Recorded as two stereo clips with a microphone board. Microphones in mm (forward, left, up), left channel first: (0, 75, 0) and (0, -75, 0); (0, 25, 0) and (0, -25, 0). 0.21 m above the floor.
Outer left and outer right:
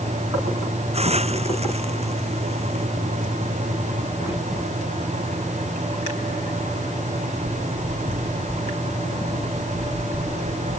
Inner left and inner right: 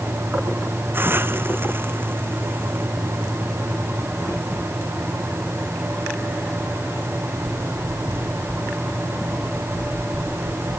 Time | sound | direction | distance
0.9 | a hiss | 45° right (ahead or behind) | ?